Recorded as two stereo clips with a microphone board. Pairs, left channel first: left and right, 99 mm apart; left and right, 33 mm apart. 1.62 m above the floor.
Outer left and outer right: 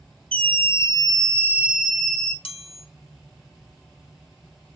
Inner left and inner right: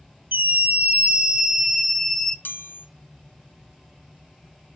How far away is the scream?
About 1.0 m.